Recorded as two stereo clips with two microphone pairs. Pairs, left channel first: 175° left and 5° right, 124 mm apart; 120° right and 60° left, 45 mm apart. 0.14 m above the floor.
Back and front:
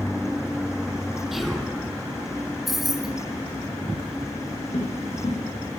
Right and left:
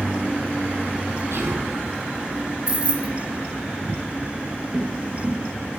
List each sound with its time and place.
1.3 s whispering: 80° left, 3.5 m
2.7 s keys jangling: 75° left, 0.8 m
4.7 s footsteps: 145° left, 3 m